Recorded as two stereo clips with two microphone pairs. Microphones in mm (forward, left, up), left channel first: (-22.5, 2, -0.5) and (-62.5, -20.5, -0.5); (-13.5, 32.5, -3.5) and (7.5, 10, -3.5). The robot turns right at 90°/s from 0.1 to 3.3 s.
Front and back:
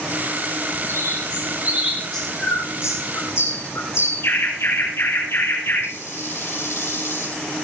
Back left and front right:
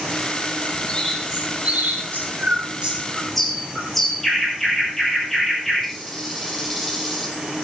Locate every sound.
0.9 s a bird: 165° right, 7 m; by 7.4 s 50° left, 7 m